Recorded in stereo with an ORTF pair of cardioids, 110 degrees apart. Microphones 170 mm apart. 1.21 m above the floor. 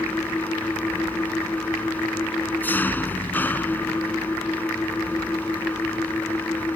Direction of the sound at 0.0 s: 10° left.